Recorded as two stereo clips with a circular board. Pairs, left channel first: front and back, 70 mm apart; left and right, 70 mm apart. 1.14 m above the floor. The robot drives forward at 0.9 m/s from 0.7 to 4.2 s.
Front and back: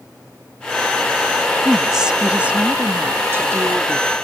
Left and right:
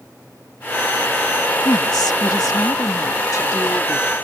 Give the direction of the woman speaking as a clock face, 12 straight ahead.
9 o'clock.